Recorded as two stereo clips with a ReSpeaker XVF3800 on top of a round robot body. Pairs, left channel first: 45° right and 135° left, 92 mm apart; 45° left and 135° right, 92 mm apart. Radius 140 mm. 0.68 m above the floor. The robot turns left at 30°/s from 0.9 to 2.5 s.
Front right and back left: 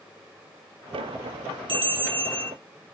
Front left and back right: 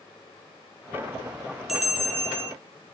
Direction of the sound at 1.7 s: 140° left.